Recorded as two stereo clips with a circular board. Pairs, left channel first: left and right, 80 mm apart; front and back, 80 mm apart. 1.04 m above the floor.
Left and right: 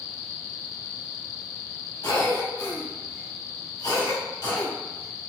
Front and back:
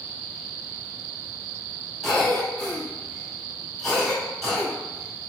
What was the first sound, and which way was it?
A cough, 85° left.